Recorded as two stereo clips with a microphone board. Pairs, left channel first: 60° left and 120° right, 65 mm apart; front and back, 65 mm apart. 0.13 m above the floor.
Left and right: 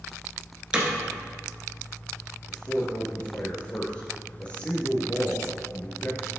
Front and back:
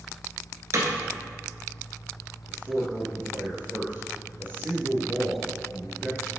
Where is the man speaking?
130° left, 2 m.